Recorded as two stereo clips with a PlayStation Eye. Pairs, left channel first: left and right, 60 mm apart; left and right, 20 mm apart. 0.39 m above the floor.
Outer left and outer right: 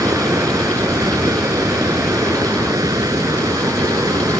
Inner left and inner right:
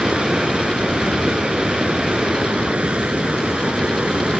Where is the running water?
80° right.